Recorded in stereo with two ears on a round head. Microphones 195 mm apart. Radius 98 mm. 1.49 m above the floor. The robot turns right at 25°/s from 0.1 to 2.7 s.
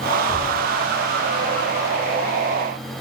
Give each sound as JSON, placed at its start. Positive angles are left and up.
{"t": 0.3, "sound": "a thud", "side_deg": 0, "distance_m": 3.5}